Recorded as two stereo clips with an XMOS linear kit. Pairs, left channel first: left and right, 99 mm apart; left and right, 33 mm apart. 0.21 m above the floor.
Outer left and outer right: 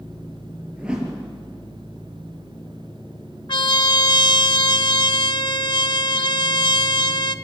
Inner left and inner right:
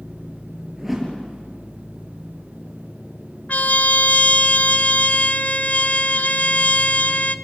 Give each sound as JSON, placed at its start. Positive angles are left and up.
{"t": 0.8, "sound": "a whoosh", "side_deg": -10, "distance_m": 4.5}
{"t": 3.5, "sound": "a trumpet", "side_deg": 55, "distance_m": 0.6}